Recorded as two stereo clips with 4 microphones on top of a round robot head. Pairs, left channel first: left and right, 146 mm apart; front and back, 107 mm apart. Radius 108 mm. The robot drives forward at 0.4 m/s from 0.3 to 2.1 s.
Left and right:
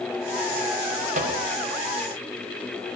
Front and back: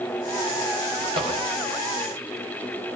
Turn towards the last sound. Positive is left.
turn(degrees=-130)